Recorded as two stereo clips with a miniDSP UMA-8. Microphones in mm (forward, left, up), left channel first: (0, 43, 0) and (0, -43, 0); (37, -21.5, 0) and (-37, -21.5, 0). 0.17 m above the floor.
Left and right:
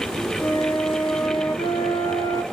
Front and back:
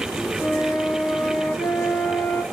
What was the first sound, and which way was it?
A flute, 70° left.